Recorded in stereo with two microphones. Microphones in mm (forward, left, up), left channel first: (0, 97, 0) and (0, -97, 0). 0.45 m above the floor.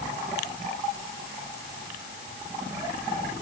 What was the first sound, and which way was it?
Only background noise.